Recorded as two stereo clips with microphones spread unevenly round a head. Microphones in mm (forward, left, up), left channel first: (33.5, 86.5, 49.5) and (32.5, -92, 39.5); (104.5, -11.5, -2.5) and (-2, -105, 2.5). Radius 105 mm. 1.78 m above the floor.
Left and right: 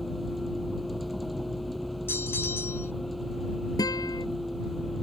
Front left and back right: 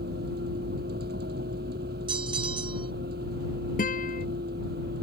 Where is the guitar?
20° left.